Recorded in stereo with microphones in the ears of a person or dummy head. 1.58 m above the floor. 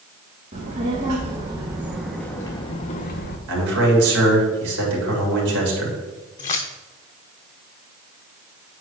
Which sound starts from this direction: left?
Keys jangling, at 6.4 s.